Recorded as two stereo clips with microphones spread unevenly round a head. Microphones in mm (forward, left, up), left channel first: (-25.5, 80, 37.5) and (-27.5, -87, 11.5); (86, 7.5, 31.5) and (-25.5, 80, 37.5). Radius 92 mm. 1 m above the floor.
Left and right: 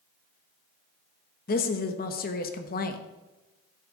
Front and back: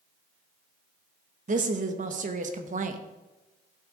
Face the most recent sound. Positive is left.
turn(degrees=125)